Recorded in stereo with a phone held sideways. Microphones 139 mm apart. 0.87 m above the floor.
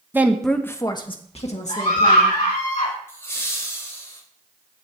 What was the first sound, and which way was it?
A woman speaking, 15° right (ahead or behind).